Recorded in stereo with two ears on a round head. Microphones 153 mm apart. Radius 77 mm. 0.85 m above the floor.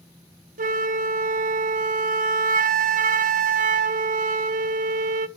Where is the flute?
50° right (ahead or behind), 0.7 m.